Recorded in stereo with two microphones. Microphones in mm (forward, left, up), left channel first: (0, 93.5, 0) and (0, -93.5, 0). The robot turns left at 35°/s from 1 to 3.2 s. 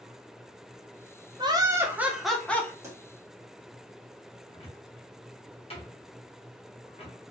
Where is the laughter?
150° right, 0.6 m; by 2.7 s 165° left, 0.6 m.